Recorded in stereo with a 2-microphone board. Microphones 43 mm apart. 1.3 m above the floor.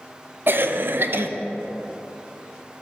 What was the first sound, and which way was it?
A cough, 55° right (ahead or behind).